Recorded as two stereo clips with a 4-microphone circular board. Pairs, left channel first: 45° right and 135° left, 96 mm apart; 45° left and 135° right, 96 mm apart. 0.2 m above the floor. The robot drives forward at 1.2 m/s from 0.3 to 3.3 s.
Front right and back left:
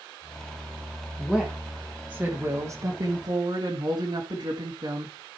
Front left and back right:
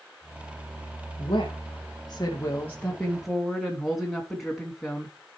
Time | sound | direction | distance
1.2 | a woman speaking | 30° left | 2 m